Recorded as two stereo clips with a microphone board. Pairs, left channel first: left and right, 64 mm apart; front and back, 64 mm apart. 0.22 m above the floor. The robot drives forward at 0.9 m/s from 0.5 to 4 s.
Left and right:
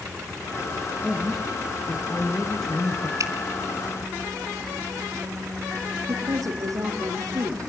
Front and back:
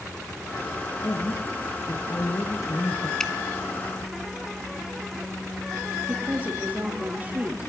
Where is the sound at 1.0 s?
5° left, 4 m.